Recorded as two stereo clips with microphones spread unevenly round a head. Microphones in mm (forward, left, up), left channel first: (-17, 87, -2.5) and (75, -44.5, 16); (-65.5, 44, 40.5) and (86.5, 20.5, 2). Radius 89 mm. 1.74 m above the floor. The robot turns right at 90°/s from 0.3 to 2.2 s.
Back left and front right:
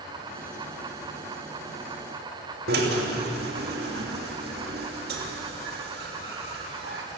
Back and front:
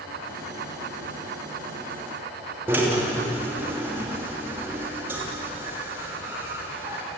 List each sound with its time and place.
2.7 s a drill: 90° right, 3 m